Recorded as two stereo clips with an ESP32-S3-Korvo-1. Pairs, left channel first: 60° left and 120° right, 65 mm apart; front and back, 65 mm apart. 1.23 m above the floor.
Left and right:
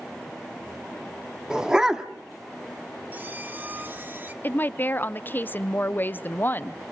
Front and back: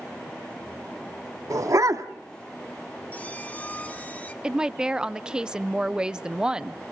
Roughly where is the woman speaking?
Left.